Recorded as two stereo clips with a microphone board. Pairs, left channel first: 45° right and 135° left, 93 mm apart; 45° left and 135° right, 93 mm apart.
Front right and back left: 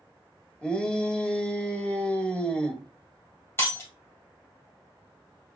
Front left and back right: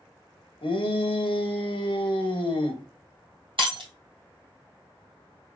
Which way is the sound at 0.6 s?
35° left.